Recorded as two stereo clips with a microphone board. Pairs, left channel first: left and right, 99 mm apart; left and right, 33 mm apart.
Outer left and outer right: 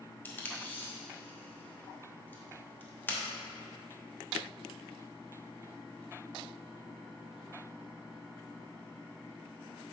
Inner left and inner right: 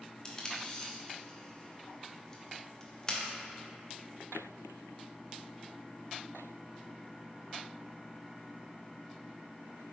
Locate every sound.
0.2 s tape being pulled: 20° left (ahead or behind), 0.9 m